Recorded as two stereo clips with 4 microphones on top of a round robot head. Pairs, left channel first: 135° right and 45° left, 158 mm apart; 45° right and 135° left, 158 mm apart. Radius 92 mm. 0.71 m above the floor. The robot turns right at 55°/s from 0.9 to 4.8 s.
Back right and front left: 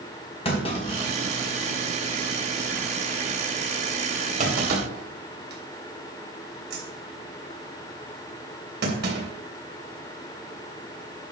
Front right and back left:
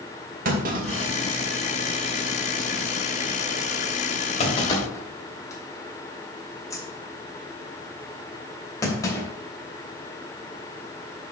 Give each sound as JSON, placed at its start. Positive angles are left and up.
{"t": 0.5, "sound": "a clunk", "azimuth_deg": 170, "distance_m": 3.0}